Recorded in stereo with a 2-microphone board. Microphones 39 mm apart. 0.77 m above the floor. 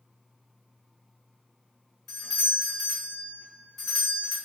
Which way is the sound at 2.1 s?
Centre (ahead or behind).